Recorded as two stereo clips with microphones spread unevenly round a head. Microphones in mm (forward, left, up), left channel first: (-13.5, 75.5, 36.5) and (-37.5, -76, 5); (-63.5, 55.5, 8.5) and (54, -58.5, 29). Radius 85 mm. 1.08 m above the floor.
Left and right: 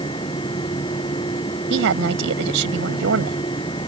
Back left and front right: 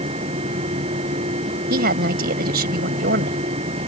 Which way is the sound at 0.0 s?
15° left.